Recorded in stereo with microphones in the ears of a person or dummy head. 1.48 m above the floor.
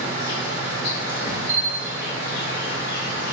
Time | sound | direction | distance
0.0 | an insect | 70° left (ahead or behind) | 0.9 m
1.5 | a bell | 70° right (ahead or behind) | 0.9 m